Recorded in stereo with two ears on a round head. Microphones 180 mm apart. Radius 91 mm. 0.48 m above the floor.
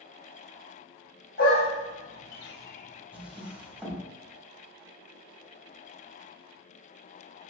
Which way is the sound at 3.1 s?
5° right (ahead or behind).